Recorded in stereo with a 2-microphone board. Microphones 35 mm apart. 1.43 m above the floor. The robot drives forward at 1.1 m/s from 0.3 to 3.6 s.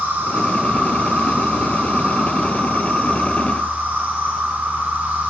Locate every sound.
0.0 s an insect: 80° right, 6.5 m; by 5.3 s 60° right (ahead or behind), 7.5 m